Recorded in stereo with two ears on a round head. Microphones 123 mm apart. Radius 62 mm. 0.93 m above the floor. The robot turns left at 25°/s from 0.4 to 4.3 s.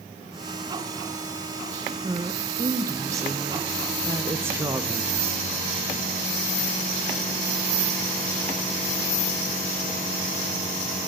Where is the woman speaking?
20° right (ahead or behind), 0.5 m.